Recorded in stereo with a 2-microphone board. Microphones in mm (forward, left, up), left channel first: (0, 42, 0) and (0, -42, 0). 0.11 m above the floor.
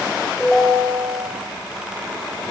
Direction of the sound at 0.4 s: Centre (ahead or behind).